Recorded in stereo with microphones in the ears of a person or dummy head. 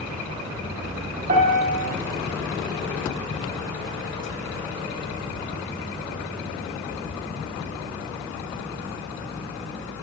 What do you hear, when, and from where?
1.3 s a piano: 45° right (ahead or behind), 0.8 m